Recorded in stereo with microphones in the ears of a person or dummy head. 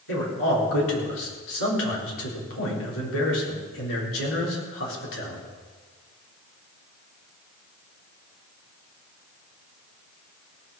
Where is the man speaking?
80° left, 3.5 m.